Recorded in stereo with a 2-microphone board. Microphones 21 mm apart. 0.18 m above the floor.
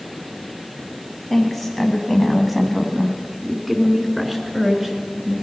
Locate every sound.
1.3 s a woman speaking: centre (ahead or behind), 1.3 m; by 5.3 s 15° right (ahead or behind), 3 m